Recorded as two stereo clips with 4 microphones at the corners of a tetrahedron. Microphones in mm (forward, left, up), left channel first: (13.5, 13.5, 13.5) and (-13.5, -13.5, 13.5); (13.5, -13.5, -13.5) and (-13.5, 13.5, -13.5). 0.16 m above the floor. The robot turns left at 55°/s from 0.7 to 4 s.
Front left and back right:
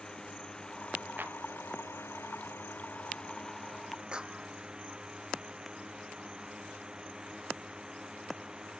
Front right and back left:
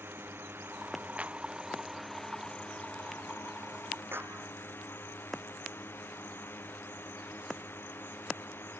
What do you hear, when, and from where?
0.0 s a drone: 115° left; by 8.8 s 65° right
1.2 s a clap: 170° right; by 1.4 s straight behind
4.1 s a clap: 160° left